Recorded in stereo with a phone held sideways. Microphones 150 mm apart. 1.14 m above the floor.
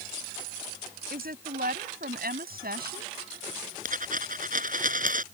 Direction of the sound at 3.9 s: 65° right (ahead or behind).